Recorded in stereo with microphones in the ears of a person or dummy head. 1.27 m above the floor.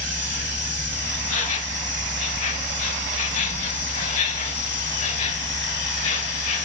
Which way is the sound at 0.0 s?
40° left (ahead or behind).